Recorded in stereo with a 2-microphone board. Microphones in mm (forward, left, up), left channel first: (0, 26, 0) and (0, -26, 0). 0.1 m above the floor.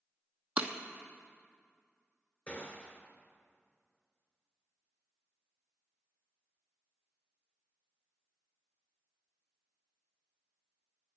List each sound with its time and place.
0.6 s breaking glass: 25° right (ahead or behind), 1.0 m
2.5 s a gunshot: 30° left (ahead or behind), 1.4 m